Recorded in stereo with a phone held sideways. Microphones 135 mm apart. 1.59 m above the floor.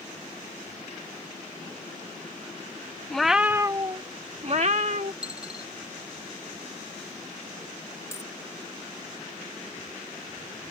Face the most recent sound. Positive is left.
turn(degrees=20)  # may be behind; listen again after turning